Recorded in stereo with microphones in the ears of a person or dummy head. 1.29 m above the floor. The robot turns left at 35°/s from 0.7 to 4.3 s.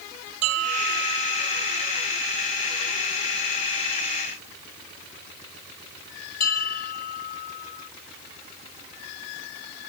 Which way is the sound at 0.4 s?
75° right (ahead or behind).